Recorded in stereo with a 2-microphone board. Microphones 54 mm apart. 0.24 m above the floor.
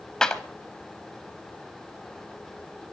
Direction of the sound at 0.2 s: 15° left (ahead or behind).